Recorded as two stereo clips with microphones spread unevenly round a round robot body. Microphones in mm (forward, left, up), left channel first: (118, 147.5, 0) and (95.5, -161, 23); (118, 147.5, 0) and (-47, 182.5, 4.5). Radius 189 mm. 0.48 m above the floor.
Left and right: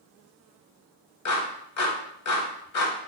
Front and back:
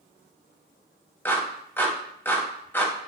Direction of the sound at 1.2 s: 65° left.